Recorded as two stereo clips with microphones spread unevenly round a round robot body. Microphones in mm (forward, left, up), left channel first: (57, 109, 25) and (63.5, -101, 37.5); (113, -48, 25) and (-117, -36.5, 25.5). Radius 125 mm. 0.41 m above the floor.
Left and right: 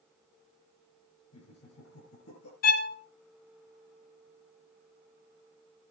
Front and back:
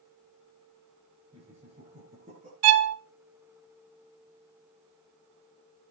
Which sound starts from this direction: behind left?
A violin, at 2.6 s.